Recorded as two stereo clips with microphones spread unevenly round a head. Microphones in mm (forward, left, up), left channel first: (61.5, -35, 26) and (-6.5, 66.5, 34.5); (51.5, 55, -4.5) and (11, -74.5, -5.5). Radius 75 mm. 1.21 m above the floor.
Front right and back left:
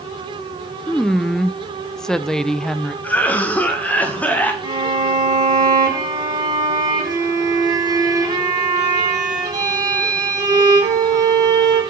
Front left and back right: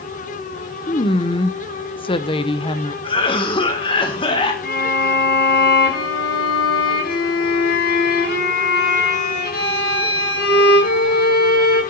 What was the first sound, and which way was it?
A woman speaking, 25° left.